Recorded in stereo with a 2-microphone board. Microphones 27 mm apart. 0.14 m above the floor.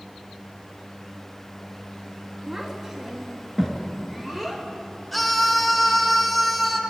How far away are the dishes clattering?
No dishes clattering in this recording.